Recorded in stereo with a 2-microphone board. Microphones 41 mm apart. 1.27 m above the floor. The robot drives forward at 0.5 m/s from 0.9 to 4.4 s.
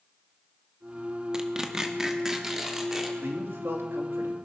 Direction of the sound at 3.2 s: 65° right (ahead or behind).